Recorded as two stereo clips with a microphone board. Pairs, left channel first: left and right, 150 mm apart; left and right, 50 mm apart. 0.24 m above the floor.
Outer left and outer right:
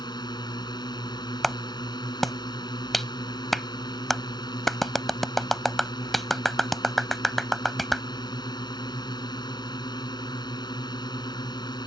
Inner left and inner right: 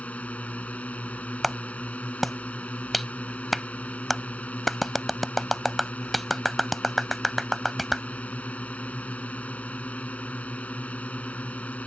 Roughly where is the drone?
Left.